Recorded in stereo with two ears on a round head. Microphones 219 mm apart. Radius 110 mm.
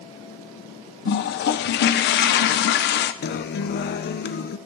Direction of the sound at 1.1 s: 45° left (ahead or behind).